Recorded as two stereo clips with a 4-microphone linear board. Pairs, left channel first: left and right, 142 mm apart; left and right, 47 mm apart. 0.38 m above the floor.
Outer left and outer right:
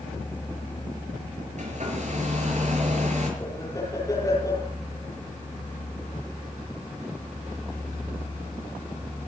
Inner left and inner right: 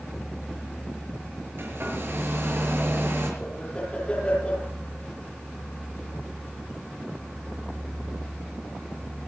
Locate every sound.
1.6 s a hair dryer: 55° right (ahead or behind), 6 m
3.4 s laughter: 25° left (ahead or behind), 9.5 m